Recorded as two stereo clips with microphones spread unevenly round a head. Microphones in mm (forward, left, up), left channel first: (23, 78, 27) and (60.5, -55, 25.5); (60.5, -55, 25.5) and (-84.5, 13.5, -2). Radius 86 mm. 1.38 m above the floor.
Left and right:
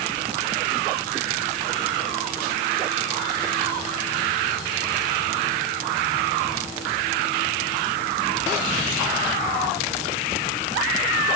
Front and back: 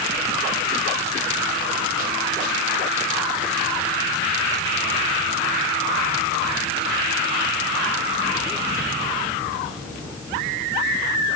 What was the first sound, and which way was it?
Only background noise.